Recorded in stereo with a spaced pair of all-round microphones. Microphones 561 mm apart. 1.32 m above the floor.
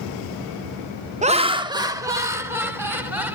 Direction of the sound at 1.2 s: 15° right (ahead or behind).